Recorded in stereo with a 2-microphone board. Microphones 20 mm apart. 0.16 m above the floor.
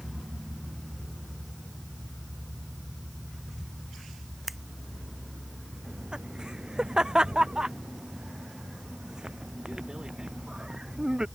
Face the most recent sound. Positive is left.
turn(degrees=-35)  # may be behind; listen again after turning